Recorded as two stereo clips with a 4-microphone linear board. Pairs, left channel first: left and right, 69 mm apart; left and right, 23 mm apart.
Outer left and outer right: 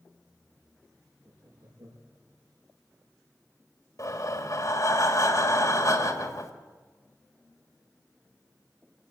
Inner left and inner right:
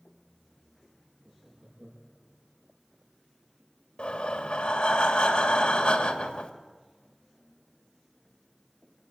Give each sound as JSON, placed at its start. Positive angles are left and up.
{"t": 1.2, "sound": "laughter", "side_deg": -75, "distance_m": 6.0}
{"t": 4.0, "sound": "breathing", "side_deg": 55, "distance_m": 2.5}